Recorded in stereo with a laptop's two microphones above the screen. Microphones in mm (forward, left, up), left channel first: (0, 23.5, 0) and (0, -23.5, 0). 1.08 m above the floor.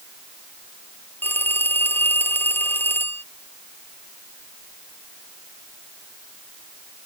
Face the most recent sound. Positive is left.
turn(degrees=50)  # may be behind; listen again after turning